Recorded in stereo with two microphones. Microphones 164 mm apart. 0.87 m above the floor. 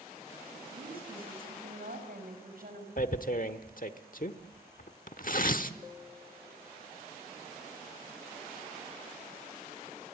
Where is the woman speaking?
70° right (ahead or behind), 5.5 m.